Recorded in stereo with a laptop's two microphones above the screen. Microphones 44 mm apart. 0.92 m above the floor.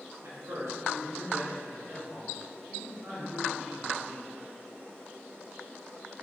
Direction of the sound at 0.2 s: 70° right (ahead or behind).